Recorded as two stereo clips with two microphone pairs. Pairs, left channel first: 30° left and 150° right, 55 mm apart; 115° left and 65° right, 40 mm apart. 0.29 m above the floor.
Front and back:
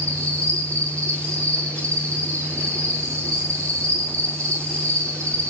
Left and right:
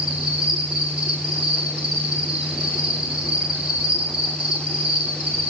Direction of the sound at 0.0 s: 135° right.